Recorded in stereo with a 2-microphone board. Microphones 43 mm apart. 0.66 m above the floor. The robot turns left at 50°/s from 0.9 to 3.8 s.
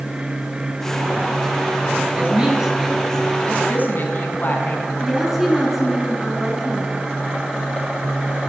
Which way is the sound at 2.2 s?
35° right (ahead or behind).